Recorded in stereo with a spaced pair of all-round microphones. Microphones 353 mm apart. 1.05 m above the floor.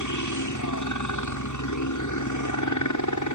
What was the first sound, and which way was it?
A helicopter, 55° left (ahead or behind).